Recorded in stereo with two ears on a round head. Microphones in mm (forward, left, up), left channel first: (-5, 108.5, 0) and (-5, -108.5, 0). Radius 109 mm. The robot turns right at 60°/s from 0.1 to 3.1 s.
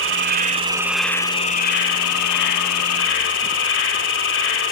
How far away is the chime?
No chime in this recording.